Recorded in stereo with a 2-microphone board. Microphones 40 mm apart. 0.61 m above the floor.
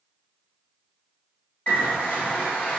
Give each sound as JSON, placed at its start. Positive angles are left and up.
{"t": 1.7, "sound": "a bird", "side_deg": 35, "distance_m": 1.6}